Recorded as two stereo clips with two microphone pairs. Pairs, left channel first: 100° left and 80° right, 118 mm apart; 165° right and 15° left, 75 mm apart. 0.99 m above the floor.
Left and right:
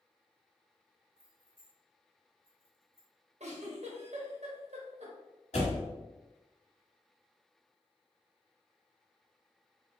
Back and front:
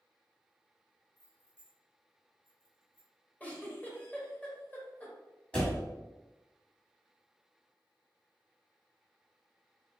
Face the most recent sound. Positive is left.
turn(degrees=120)